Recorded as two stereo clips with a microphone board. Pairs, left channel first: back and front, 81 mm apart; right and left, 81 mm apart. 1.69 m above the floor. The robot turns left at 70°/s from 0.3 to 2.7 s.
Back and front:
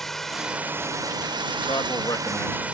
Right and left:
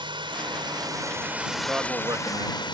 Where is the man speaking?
165° left; by 2.6 s 100° left.